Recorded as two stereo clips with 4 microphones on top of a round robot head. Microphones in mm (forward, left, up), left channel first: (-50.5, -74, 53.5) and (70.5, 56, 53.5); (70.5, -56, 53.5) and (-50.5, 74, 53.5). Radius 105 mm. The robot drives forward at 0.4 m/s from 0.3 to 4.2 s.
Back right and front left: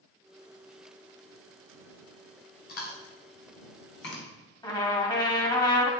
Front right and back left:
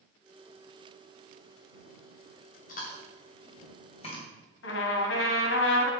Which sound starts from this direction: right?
Chewing, at 2.7 s.